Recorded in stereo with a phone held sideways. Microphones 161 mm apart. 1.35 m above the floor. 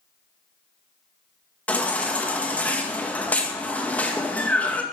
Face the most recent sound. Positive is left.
turn(degrees=10)  # may be behind; listen again after turning